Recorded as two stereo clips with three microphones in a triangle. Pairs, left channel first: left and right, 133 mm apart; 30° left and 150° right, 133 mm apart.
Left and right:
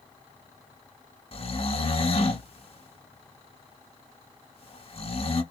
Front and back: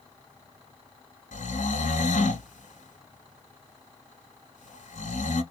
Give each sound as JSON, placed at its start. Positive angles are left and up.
{"t": 1.3, "sound": "snoring", "azimuth_deg": 50, "distance_m": 0.9}